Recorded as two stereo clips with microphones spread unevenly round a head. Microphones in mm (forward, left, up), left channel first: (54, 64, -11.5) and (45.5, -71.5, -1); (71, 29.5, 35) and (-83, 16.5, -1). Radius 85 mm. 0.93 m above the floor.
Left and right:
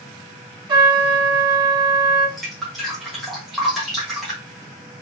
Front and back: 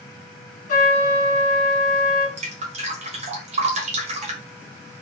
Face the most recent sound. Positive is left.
turn(degrees=175)